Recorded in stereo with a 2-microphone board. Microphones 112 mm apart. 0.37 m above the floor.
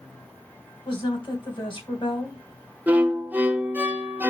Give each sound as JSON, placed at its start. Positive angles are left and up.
{"t": 0.8, "sound": "a woman speaking", "side_deg": 45, "distance_m": 3.0}
{"t": 2.9, "sound": "a violin", "side_deg": -15, "distance_m": 0.9}